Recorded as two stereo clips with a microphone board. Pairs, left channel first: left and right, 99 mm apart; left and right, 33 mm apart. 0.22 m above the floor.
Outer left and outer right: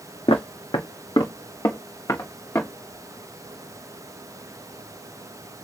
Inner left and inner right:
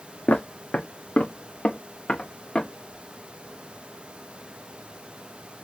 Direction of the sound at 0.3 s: 65° left (ahead or behind).